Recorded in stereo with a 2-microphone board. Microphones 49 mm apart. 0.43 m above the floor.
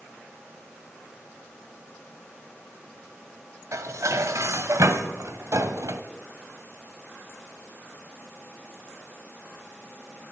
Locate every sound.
3.7 s dishes clattering: 70° right (ahead or behind), 1.7 m